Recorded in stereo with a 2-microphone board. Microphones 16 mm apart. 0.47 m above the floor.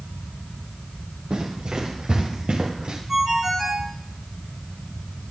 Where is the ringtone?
25° right (ahead or behind), 4 m.